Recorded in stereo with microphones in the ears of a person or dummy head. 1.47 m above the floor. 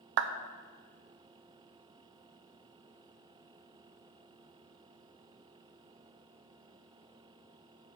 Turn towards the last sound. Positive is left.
turn(degrees=-60)  # may be behind; listen again after turning